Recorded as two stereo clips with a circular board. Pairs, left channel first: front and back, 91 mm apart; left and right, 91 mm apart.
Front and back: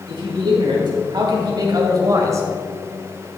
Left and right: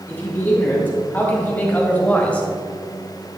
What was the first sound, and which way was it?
A man speaking, 160° left.